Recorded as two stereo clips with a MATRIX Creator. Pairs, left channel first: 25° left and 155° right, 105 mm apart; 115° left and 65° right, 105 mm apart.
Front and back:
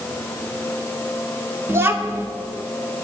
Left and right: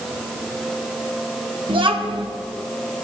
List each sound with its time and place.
1.7 s a child speaking: 95° right, 1.3 m